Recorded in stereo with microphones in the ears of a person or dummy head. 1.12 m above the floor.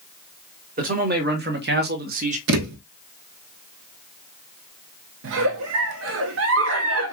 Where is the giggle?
70° right (ahead or behind), 0.8 m.